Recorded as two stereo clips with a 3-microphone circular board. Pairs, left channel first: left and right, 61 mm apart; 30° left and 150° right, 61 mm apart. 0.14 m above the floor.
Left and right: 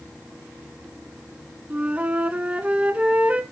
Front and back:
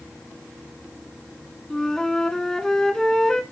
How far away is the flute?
About 0.8 m.